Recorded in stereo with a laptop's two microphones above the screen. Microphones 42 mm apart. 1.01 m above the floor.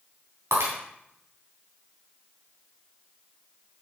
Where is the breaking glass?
75° right (ahead or behind), 3.5 m.